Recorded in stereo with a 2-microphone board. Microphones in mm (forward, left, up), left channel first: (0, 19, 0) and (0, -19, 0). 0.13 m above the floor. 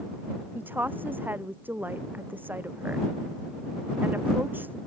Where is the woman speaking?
60° right (ahead or behind).